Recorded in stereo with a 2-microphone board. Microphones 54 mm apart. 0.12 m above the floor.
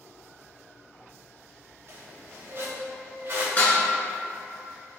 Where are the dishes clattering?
30° left (ahead or behind), 1.1 m.